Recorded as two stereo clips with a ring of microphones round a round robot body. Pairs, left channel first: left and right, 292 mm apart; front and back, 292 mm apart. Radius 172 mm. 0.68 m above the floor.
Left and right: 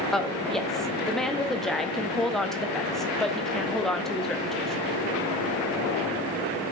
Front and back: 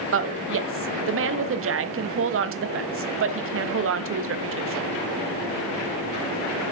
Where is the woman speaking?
Straight behind, 0.6 m.